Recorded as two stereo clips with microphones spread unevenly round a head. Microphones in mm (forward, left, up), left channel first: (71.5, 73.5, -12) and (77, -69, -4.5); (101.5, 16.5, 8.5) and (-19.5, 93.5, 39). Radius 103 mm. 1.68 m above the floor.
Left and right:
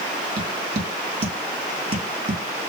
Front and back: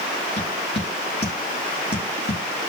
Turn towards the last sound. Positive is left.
turn(degrees=-105)